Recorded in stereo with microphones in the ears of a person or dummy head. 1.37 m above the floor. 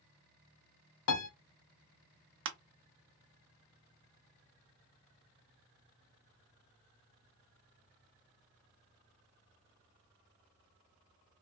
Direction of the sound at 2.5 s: 65° right (ahead or behind).